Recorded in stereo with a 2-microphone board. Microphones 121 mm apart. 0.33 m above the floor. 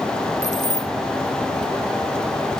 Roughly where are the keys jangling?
Left.